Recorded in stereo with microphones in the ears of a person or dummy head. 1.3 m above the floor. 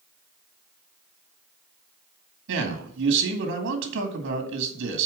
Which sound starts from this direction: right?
A man speaking, at 2.5 s.